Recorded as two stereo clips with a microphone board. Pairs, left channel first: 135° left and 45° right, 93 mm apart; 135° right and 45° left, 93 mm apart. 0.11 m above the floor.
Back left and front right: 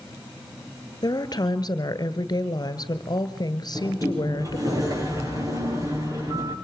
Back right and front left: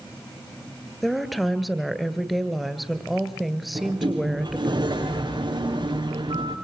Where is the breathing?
I don't hear breathing.